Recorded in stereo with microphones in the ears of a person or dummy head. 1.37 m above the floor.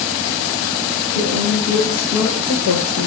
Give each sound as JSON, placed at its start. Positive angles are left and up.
{"t": 1.1, "sound": "a woman speaking", "side_deg": 65, "distance_m": 1.7}